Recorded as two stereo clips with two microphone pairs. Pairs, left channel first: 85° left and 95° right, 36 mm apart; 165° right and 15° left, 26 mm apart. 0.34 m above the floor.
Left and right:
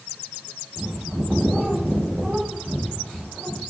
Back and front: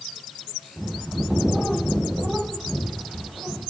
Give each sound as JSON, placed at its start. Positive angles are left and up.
{"t": 0.8, "sound": "a bird", "azimuth_deg": -40, "distance_m": 5.0}